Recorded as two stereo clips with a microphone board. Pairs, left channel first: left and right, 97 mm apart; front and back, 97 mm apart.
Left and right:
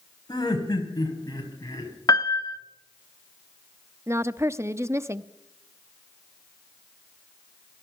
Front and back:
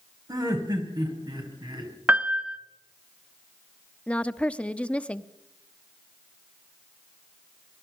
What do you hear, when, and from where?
0.3 s laughter: 135° left, 4.5 m; by 2.0 s 140° left, 5.5 m
2.1 s a piano: 115° left, 1.1 m
4.1 s a woman speaking: 60° right, 0.7 m